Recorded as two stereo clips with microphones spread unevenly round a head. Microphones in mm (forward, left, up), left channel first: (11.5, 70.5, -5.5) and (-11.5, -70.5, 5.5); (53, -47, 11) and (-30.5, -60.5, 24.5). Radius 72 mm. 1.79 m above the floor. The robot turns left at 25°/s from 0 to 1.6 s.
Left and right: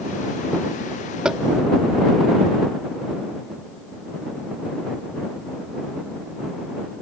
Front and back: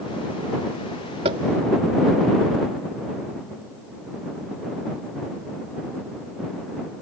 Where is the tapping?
175° left; by 1.4 s 170° left.